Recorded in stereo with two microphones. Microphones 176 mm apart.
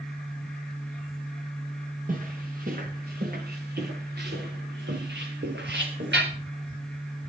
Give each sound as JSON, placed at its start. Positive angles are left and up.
{"t": 2.1, "sound": "footsteps", "side_deg": -50, "distance_m": 6.0}